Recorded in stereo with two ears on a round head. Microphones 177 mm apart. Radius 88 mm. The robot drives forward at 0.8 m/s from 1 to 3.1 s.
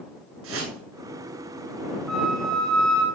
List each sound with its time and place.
0.4 s a whoosh: 80° right, 8.5 m
2.1 s a flute: centre (ahead or behind), 5.5 m